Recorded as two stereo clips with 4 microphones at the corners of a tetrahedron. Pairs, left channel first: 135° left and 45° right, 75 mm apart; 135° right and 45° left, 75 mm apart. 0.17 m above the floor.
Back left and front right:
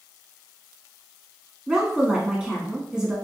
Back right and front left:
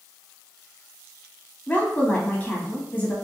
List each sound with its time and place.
1.7 s a woman speaking: 105° right, 1.1 m